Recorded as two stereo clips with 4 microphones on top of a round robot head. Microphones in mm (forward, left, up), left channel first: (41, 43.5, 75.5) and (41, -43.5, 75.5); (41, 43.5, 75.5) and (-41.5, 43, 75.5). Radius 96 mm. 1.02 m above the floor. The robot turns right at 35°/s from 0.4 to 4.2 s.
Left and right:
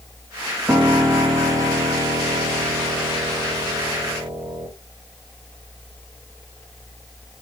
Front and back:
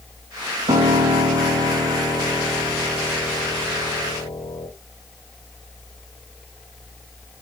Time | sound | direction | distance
0.7 | a piano | 170° right | 1.7 m